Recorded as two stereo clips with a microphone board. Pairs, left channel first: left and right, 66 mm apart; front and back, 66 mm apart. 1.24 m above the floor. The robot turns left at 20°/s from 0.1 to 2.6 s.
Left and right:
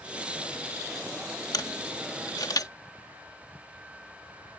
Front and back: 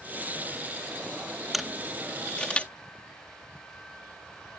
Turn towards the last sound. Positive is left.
turn(degrees=70)